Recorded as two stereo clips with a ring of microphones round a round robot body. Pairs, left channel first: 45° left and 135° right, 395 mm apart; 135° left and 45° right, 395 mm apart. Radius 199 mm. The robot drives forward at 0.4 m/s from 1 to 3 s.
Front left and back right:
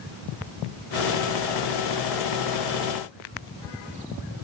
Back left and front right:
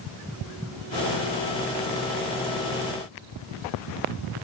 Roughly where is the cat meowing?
I don't hear a cat meowing.